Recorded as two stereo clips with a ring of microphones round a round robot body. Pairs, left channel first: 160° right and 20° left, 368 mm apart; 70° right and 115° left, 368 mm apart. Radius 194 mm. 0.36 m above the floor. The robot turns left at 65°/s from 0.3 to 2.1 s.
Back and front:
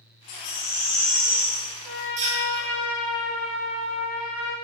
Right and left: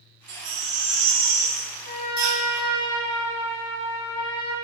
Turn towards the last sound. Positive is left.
turn(degrees=-85)